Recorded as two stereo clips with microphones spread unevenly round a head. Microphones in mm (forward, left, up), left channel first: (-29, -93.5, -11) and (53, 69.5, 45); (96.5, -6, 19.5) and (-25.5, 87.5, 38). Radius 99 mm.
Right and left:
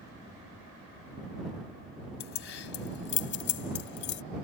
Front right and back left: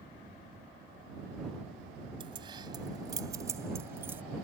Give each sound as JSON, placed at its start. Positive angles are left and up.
{"t": 2.2, "sound": "keys jangling", "azimuth_deg": -150}